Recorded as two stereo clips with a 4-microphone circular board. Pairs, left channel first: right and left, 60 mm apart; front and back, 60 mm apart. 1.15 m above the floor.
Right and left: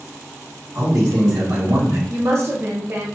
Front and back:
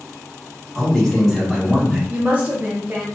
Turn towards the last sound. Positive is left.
turn(degrees=125)